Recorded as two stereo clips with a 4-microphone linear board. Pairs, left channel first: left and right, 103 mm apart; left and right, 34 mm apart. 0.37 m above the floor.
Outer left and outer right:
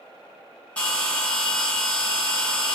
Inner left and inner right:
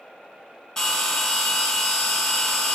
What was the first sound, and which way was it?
A bell, 10° left (ahead or behind).